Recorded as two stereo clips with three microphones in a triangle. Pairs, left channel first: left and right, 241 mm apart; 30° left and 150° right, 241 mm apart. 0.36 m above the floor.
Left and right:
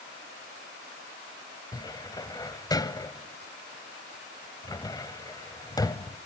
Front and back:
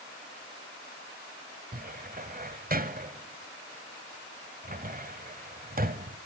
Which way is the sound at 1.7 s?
165° left.